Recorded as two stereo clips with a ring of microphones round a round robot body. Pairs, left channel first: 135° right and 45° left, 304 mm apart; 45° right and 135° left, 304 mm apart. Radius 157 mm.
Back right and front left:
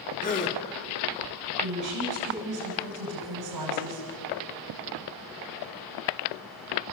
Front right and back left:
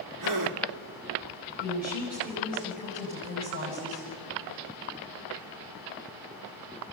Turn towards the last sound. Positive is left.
turn(degrees=70)